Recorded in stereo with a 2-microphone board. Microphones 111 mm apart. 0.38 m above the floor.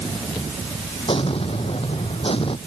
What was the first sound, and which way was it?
An explosion, 55° left (ahead or behind).